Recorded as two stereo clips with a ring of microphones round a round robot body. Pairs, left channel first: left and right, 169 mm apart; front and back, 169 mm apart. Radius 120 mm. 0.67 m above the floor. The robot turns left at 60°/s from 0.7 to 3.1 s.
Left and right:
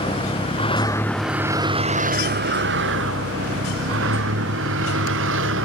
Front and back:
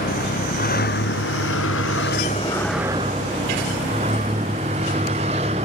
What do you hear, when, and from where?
0.0 s a vehicle: 30° left; by 5.7 s 110° right